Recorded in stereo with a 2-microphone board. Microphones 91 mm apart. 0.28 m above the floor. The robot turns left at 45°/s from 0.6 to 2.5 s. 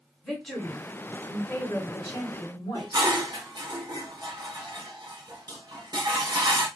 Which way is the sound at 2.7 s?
50° right (ahead or behind).